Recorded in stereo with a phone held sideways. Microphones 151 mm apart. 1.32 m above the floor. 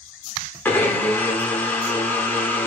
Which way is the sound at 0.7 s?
15° left (ahead or behind).